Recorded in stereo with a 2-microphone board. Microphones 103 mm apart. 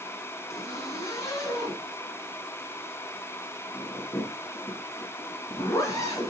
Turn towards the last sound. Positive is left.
turn(degrees=30)  # may be behind; listen again after turning